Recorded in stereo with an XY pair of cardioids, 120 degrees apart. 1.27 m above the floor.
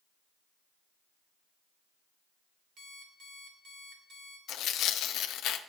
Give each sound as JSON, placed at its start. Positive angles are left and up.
{"t": 2.8, "sound": "an alarm clock", "azimuth_deg": -65, "distance_m": 2.0}
{"t": 4.5, "sound": "tearing paper", "azimuth_deg": 65, "distance_m": 0.6}